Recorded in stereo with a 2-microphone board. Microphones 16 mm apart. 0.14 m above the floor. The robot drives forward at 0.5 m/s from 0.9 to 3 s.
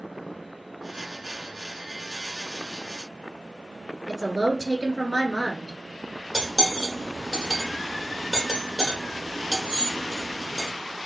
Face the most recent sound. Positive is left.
turn(degrees=-30)  # may be behind; listen again after turning